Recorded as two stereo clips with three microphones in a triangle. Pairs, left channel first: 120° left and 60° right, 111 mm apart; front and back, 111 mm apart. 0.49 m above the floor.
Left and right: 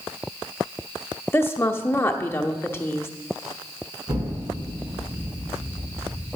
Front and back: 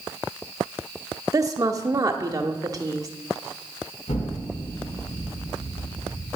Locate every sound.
1.3 s a woman speaking: 165° left, 0.9 m
4.1 s an explosion: 5° right, 3 m